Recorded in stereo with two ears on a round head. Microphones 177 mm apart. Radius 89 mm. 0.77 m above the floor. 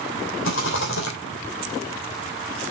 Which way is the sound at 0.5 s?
65° left (ahead or behind).